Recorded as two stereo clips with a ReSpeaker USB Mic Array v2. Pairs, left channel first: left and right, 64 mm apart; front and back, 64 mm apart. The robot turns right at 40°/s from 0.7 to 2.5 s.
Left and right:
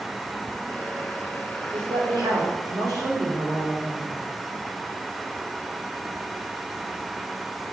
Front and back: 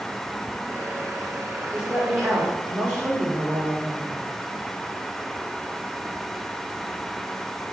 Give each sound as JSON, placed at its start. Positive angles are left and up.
{"t": 1.7, "sound": "a woman speaking", "azimuth_deg": -110, "distance_m": 2.5}